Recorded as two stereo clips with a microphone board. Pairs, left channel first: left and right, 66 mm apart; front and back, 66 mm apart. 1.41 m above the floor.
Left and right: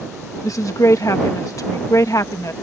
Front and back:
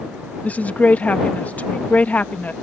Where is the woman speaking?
65° left.